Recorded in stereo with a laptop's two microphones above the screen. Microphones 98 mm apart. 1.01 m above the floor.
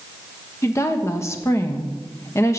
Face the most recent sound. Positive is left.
turn(degrees=30)  # may be behind; listen again after turning